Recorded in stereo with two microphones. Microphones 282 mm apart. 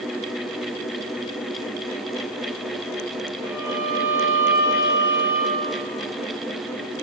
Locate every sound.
3.4 s a violin: 15° right (ahead or behind), 1.9 m